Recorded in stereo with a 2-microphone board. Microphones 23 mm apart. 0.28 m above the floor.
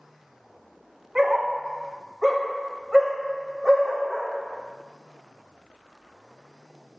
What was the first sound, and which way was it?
A dog barking, 15° right (ahead or behind).